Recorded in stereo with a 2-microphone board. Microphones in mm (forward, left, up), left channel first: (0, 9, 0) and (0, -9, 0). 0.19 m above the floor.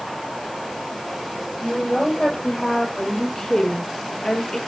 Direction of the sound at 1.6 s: 25° left (ahead or behind).